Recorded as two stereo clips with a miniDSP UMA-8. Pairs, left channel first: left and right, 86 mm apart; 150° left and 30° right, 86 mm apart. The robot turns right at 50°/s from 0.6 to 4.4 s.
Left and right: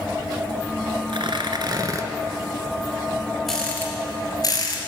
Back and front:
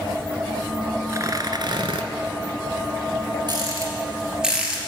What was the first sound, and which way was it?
Tearing paper, 85° right.